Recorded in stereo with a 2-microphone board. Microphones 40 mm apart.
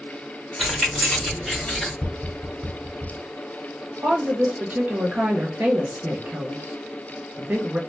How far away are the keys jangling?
About 2 m.